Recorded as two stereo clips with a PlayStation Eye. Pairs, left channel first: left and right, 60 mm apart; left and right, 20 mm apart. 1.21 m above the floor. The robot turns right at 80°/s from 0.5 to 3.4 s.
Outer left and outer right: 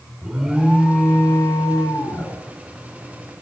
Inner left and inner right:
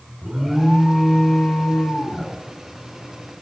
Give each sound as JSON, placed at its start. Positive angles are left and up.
{"t": 0.2, "sound": "an alarm", "azimuth_deg": -15, "distance_m": 4.0}